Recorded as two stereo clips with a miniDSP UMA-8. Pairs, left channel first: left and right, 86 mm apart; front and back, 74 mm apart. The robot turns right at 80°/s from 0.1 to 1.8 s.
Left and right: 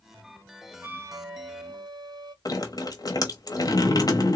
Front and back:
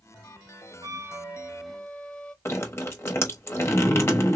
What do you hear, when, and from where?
0.8 s a flute: 160° right, 0.5 m; by 2.4 s 80° right, 0.5 m
2.5 s dripping: 50° left, 0.8 m